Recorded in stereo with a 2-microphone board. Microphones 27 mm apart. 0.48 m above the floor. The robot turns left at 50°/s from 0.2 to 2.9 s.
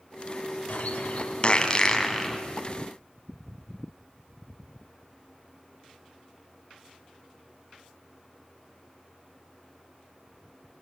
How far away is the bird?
About 3 m.